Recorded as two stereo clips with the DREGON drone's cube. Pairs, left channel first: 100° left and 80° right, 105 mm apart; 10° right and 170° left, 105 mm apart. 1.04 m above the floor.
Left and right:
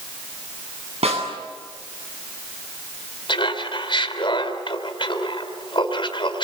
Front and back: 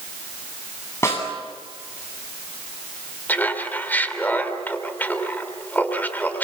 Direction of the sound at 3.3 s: 65° left.